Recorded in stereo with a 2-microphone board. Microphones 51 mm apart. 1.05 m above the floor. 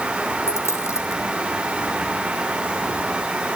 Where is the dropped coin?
70° left (ahead or behind), 3.5 m.